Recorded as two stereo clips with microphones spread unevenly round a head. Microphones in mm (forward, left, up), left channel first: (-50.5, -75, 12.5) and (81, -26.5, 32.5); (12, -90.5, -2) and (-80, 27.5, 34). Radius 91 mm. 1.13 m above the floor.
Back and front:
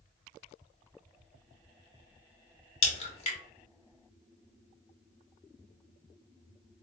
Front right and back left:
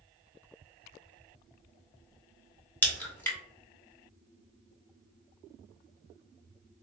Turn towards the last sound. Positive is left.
turn(degrees=-125)